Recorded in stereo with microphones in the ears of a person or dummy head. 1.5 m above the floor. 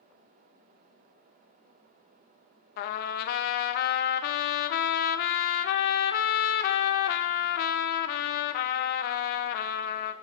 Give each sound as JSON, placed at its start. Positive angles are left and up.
{"t": 2.8, "sound": "a trumpet", "side_deg": 60, "distance_m": 0.5}